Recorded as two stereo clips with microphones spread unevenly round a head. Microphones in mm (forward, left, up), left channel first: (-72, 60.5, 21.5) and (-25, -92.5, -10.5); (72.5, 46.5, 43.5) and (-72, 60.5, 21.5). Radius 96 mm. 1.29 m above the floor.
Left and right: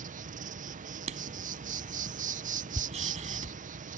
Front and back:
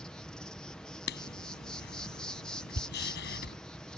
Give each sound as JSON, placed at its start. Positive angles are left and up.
{"t": 0.0, "sound": "an insect", "azimuth_deg": -95}
{"t": 1.1, "sound": "writing", "azimuth_deg": -10}